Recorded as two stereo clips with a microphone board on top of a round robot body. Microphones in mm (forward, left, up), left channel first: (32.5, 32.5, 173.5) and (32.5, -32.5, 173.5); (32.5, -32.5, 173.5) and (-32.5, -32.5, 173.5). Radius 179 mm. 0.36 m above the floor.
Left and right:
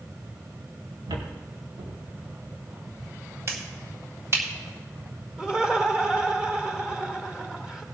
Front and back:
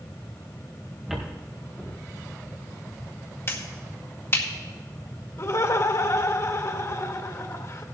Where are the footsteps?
95° right, 3 m; by 3.1 s 90° right, 4.5 m.